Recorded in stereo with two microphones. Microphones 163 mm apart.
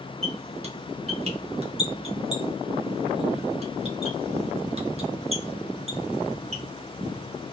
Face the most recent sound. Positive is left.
turn(degrees=-40)  # may be behind; listen again after turning